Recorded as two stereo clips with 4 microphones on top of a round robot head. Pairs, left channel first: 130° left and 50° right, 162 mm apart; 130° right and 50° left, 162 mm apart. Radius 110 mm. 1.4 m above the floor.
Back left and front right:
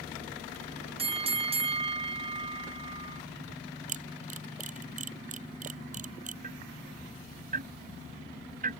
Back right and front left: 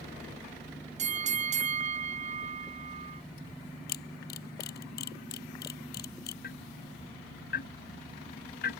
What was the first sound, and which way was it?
A bell, 5° left.